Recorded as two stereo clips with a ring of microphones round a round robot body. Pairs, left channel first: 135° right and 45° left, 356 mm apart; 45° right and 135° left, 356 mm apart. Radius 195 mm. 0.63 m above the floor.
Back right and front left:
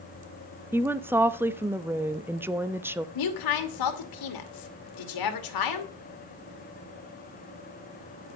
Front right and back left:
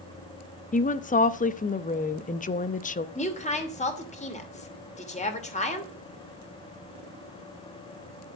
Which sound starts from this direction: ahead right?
A woman speaking, at 0.7 s.